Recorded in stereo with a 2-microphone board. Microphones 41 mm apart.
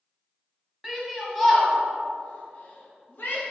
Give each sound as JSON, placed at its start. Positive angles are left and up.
{"t": 0.8, "sound": "a shout", "side_deg": -10, "distance_m": 1.9}